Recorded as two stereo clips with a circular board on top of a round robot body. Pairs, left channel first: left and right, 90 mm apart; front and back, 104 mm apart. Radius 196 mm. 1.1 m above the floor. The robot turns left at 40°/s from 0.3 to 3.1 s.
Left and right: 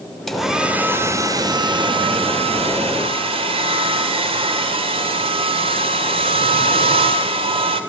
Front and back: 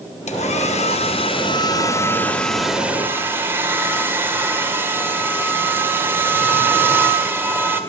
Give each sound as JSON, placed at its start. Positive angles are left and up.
{"t": 0.3, "sound": "a hair dryer", "azimuth_deg": 0, "distance_m": 2.0}